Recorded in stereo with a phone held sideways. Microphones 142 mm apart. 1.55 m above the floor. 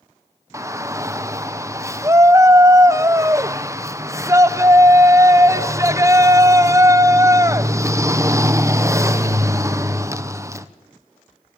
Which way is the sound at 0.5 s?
20° right (ahead or behind).